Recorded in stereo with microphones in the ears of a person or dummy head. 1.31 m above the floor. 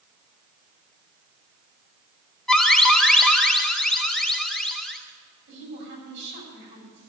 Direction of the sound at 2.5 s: 5° left (ahead or behind).